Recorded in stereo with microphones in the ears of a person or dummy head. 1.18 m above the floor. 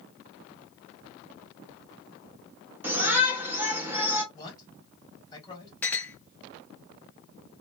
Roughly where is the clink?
Centre.